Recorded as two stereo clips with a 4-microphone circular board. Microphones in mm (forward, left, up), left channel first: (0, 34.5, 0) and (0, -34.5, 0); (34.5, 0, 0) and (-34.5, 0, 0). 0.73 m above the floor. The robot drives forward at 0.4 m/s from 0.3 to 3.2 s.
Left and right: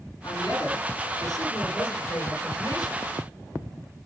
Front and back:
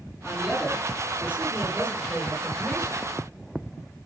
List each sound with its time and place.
0.2 s a woman speaking: 100° left, 8.5 m; by 3.0 s 110° left, 8.5 m